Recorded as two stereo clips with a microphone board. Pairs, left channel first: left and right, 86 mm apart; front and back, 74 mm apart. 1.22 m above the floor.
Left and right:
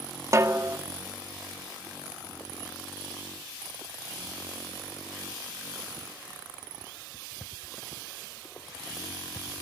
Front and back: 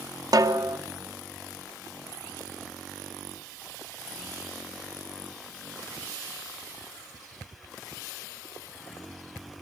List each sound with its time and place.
0.3 s a snare drum: 145° right, 2 m